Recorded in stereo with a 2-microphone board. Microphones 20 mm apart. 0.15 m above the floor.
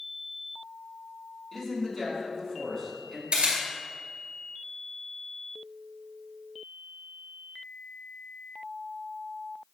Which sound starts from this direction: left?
A man speaking, at 1.5 s.